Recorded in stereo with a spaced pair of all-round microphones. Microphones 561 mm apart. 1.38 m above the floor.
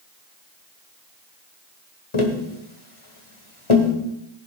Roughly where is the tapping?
Left.